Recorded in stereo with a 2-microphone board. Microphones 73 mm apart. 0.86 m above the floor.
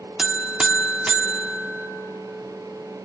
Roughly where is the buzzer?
Centre.